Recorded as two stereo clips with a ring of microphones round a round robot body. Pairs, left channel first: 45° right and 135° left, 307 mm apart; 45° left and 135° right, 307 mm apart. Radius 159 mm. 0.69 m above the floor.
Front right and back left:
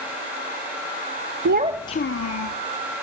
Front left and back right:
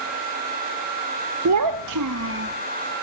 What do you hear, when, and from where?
1.4 s a child speaking: 175° right, 0.6 m; by 2.6 s 75° right, 1.0 m